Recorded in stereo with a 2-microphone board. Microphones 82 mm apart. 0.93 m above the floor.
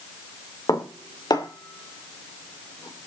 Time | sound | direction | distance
0.7 | dishes clattering | 50° left (ahead or behind) | 2 m